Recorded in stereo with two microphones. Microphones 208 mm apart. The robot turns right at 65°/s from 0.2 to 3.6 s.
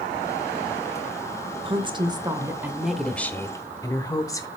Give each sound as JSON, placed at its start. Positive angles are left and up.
{"t": 1.6, "sound": "a woman speaking", "side_deg": -25, "distance_m": 0.8}